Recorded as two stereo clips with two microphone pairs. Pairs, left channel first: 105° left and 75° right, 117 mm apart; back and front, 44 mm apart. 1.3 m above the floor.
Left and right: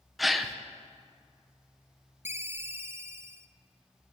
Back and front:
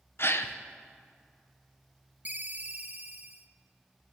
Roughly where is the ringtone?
Ahead.